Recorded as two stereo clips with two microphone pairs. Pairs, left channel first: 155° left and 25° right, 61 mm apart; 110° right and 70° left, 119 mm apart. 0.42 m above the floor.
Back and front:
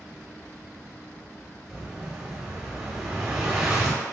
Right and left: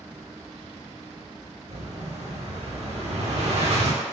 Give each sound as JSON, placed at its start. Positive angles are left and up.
{"t": 1.7, "sound": "an explosion", "azimuth_deg": 50, "distance_m": 0.7}